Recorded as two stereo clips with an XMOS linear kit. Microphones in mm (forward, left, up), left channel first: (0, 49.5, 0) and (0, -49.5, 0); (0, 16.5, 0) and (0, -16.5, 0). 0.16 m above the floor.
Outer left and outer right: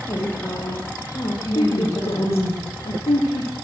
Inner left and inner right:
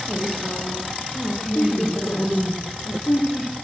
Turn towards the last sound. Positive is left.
turn(degrees=80)